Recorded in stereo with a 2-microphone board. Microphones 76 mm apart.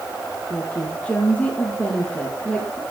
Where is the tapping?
No tapping in this recording.